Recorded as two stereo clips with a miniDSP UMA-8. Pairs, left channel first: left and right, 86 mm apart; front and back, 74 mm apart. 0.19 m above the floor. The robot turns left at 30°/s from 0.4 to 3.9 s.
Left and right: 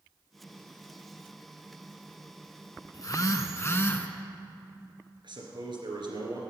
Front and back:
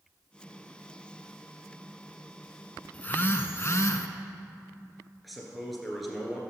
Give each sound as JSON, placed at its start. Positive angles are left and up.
{"t": 2.9, "sound": "a phone buzzing", "azimuth_deg": 60, "distance_m": 0.7}
{"t": 5.2, "sound": "a man speaking", "azimuth_deg": -90, "distance_m": 2.5}